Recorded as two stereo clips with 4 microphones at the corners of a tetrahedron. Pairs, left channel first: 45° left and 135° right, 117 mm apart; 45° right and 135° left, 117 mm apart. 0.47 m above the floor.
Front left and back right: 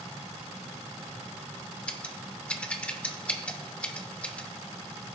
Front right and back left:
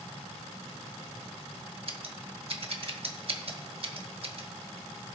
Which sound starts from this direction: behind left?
Scissors, at 1.9 s.